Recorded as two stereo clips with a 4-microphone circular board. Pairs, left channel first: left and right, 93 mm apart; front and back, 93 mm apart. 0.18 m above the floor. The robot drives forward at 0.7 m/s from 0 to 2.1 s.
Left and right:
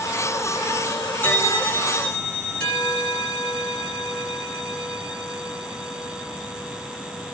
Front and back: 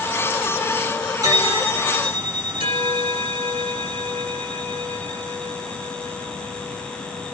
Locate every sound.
1.2 s a bell: 150° left, 0.8 m; by 7.3 s 165° left, 1.3 m